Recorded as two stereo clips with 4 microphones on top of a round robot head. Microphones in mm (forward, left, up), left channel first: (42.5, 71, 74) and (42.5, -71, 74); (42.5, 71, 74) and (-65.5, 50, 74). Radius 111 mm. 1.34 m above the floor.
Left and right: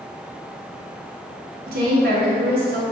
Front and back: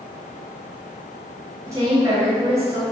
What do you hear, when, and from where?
1.7 s a woman speaking: 100° right, 2.5 m